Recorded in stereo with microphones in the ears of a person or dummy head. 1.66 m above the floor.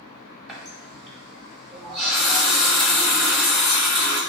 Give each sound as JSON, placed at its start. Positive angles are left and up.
{"t": 0.5, "sound": "a running tap", "side_deg": 0, "distance_m": 1.3}